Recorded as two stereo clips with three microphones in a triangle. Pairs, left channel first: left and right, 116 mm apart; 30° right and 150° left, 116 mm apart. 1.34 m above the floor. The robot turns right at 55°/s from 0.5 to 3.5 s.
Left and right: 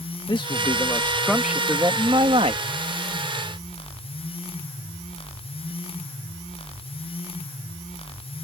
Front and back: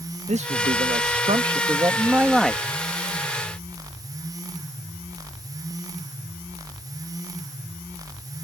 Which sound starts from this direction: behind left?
A man speaking, at 0.3 s.